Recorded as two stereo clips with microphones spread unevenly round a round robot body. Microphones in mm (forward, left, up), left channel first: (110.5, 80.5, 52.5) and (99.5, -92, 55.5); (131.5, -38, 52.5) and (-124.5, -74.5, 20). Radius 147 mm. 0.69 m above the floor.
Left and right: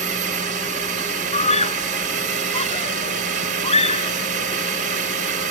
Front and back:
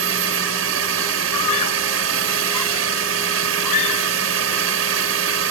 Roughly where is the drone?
Behind right.